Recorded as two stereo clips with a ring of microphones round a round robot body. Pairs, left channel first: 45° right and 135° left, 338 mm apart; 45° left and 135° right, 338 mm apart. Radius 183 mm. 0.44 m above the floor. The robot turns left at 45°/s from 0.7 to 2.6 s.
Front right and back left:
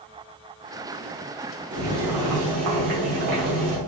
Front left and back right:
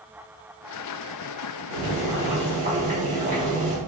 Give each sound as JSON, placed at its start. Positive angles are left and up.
{"t": 1.7, "sound": "boiling", "azimuth_deg": -160, "distance_m": 2.0}